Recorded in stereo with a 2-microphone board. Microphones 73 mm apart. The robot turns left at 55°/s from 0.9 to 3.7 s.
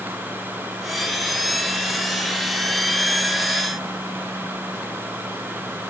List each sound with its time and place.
Only background noise.